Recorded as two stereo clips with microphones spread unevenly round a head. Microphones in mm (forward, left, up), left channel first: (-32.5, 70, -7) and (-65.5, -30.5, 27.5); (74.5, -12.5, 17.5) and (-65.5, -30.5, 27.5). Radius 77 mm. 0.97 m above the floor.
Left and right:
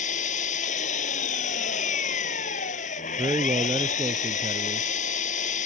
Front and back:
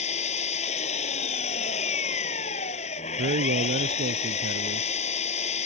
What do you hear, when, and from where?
0.0 s an engine running: 55° left
3.2 s a man speaking: 165° right